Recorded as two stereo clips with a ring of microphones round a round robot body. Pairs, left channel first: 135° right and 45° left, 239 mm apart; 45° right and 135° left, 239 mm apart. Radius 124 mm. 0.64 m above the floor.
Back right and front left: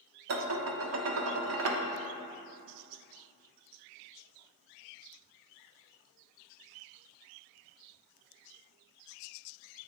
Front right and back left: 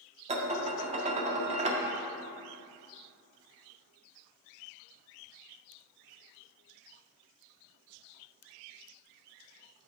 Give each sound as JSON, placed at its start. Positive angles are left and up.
{"t": 0.3, "sound": "dishes clattering", "azimuth_deg": 70, "distance_m": 0.7}